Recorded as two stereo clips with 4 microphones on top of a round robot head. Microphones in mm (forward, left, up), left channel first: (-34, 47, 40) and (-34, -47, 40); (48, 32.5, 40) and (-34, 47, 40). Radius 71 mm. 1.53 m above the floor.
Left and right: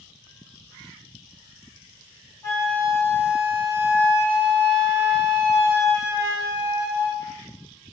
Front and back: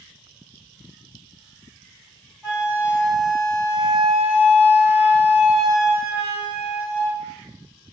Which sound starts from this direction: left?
A flute, at 2.4 s.